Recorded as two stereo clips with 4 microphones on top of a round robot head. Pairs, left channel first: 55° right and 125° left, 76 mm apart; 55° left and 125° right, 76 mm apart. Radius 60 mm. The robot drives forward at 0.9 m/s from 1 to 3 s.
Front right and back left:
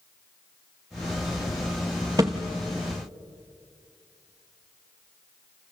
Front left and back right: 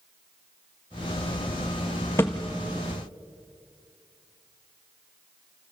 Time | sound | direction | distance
2.2 | a thud | 105° left | 1.0 m